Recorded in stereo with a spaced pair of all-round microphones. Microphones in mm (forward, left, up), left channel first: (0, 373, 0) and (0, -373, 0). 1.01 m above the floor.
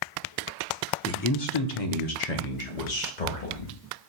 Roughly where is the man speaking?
Centre.